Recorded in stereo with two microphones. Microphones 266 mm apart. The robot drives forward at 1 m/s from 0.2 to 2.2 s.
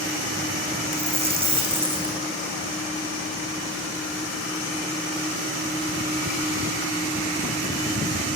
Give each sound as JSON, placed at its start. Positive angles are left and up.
{"t": 0.9, "sound": "a dropped coin", "side_deg": -25, "distance_m": 4.5}